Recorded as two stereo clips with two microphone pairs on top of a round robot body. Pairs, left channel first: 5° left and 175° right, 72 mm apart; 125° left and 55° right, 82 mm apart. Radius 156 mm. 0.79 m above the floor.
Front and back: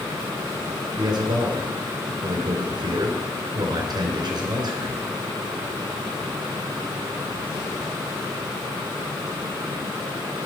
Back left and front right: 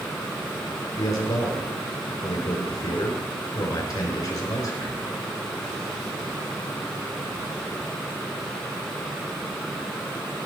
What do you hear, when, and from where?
1.0 s a man speaking: 165° left, 3.5 m